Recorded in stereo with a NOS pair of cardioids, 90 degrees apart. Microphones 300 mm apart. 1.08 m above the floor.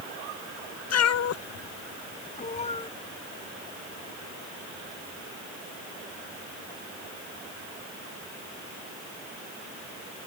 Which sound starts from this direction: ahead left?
A cat meowing, at 0.9 s.